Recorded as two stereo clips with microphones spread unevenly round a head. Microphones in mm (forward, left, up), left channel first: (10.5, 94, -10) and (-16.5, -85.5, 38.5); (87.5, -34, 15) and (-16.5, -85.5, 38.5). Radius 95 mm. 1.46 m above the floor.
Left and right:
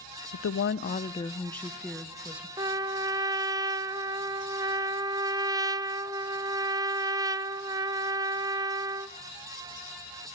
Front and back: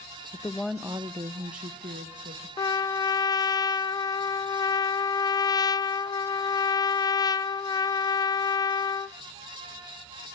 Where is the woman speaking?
95° left, 0.6 m; by 2.5 s straight behind, 1.5 m.